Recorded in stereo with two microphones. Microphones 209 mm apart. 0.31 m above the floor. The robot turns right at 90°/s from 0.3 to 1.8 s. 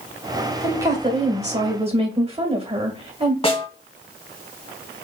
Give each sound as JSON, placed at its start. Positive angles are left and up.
{"t": 0.6, "sound": "a woman speaking", "azimuth_deg": -170, "distance_m": 1.4}
{"t": 3.4, "sound": "a snare drum", "side_deg": 30, "distance_m": 1.4}